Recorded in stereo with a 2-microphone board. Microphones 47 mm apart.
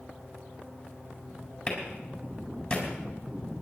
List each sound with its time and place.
1.7 s a clap: 15° left (ahead or behind), 5 m